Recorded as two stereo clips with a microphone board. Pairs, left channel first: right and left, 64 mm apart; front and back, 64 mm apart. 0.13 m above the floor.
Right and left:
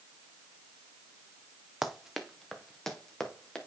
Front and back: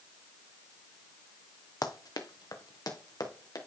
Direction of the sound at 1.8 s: 10° left.